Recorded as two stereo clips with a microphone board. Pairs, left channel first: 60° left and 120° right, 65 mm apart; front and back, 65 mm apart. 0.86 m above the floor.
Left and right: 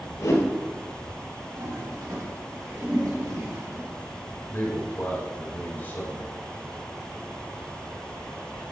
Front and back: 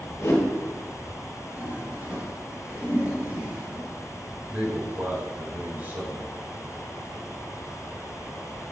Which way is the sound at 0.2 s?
35° left.